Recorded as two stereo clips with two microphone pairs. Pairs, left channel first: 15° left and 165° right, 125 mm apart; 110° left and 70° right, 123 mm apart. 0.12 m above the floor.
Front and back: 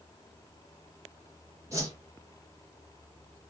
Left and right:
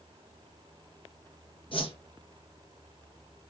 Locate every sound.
1.7 s a whoosh: 135° left, 1.8 m